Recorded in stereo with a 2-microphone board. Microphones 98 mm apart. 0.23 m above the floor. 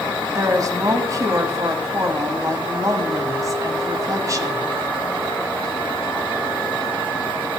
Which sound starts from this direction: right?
A woman speaking, at 0.3 s.